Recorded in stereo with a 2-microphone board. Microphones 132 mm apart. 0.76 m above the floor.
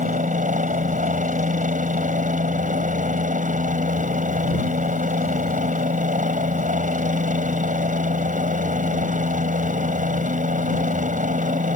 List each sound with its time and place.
0.0 s a helicopter: 70° right (ahead or behind)